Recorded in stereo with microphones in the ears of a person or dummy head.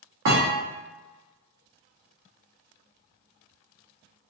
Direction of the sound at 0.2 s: 55° right (ahead or behind).